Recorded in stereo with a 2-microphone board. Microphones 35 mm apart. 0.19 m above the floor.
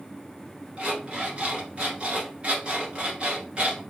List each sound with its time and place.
0.8 s an alarm clock: 30° right (ahead or behind), 1.7 m